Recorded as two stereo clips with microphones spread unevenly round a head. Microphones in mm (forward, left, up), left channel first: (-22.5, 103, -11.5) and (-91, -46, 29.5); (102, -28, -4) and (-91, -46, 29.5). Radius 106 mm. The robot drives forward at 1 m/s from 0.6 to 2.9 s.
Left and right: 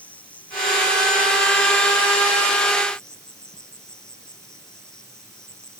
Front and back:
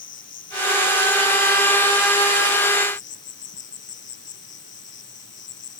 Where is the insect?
20° right; by 5.8 s 25° right.